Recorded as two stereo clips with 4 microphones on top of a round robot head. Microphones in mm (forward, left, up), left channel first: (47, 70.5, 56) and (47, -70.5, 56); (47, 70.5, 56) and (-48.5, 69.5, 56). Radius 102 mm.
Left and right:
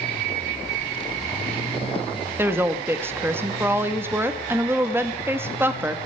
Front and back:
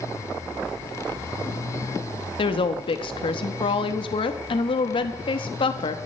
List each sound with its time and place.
2.4 s a woman speaking: 15° right, 1.1 m